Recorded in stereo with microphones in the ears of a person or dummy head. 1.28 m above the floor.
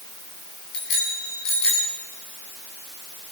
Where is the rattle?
I don't hear a rattle.